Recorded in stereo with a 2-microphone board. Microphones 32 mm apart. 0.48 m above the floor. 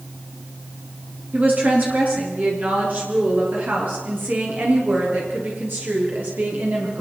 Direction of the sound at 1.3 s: 45° right (ahead or behind).